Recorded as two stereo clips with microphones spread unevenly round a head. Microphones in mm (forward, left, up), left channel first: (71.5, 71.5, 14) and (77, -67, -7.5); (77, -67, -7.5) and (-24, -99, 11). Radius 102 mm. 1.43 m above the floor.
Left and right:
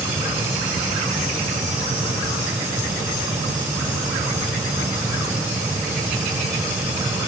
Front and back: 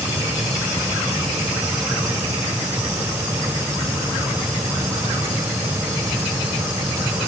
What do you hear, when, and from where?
Only background noise.